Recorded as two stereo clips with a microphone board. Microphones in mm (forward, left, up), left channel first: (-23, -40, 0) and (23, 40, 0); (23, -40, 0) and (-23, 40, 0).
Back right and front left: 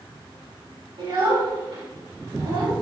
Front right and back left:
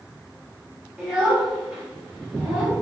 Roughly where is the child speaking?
Ahead left.